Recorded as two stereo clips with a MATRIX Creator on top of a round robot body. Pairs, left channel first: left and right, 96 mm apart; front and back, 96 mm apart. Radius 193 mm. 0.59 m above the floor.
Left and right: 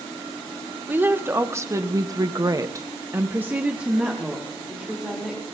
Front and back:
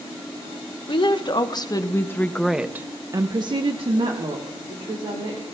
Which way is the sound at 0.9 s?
25° right.